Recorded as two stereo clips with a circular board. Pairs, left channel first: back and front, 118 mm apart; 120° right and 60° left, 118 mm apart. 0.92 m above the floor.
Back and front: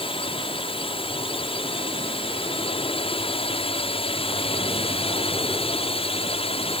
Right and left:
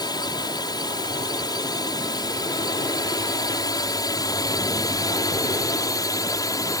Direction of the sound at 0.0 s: 165° right.